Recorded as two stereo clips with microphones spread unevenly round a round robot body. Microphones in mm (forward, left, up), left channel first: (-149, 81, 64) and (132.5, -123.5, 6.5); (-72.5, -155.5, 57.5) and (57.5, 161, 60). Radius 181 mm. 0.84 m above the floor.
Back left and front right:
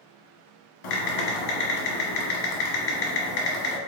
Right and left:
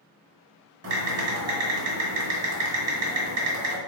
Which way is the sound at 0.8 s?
115° left.